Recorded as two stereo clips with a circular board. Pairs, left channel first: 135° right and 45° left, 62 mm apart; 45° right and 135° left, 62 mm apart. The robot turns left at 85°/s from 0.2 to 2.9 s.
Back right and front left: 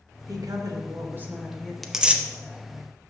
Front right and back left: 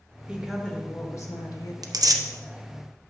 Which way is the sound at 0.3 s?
65° left.